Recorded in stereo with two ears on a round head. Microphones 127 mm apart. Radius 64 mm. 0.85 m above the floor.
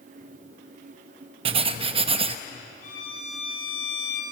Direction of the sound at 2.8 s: 60° left (ahead or behind).